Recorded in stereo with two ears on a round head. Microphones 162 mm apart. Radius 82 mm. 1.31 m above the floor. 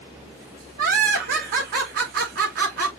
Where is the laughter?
55° right (ahead or behind), 3.5 m.